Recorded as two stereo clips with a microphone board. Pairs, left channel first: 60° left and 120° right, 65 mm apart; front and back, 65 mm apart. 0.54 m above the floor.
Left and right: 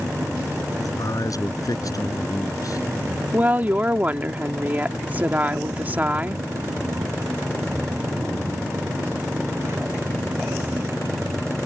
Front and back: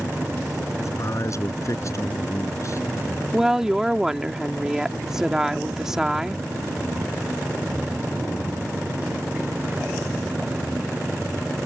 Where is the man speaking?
35° left.